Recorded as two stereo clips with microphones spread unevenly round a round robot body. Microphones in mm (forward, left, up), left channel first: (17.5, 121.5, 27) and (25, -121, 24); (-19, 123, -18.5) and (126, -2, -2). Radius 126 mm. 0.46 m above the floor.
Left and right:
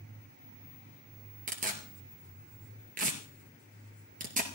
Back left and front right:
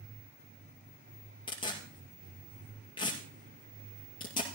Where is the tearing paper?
150° right, 1.9 m.